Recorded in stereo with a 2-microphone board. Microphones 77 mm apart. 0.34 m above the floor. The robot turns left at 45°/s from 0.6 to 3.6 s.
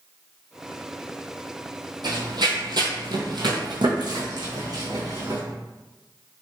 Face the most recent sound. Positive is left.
turn(degrees=-50)  # may be behind; listen again after turning